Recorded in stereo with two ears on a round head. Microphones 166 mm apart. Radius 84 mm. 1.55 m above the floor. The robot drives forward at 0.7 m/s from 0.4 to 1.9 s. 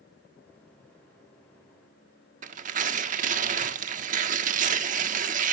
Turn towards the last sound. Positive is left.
turn(degrees=-45)  # may be behind; listen again after turning